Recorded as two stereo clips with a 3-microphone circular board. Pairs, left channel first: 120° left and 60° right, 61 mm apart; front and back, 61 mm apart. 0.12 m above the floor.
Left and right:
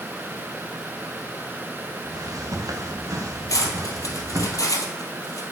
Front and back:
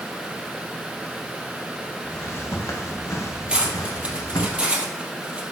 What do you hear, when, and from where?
2.0 s footsteps: 50° right, 2.5 m; by 4.5 s 20° right, 3 m
3.5 s cutlery clinking: 110° left, 2 m